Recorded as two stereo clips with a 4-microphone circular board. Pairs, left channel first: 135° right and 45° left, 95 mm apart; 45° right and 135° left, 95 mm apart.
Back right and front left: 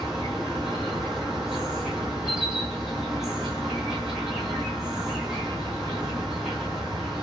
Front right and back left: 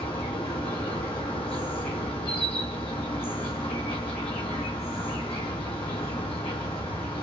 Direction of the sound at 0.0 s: 40° right.